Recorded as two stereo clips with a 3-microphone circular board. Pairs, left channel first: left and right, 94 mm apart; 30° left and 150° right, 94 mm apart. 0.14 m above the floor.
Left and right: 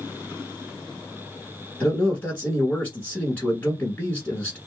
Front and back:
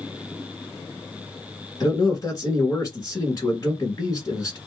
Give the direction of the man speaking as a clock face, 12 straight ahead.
11 o'clock.